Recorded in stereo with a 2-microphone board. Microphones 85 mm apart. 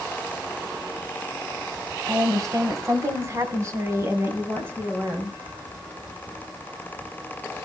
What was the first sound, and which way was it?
A woman speaking, 45° right (ahead or behind).